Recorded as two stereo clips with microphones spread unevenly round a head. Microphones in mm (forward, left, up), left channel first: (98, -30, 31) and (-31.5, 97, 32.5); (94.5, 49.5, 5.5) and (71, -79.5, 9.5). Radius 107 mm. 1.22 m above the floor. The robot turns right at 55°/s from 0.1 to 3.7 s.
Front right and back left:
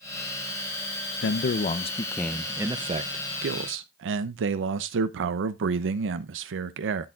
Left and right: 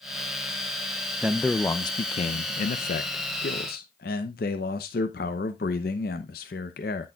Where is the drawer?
No drawer in this recording.